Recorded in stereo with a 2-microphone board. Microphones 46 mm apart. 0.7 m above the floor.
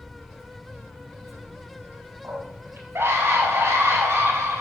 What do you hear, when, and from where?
2.2 s a scream: 65° right (ahead or behind), 5.5 m; by 4.6 s 80° right, 4.5 m